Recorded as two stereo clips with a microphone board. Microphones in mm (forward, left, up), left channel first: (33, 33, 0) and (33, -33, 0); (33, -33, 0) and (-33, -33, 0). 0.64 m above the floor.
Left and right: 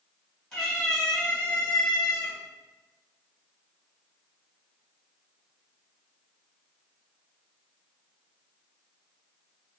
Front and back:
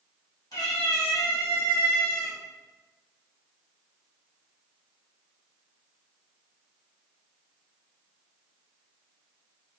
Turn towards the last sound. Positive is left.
turn(degrees=35)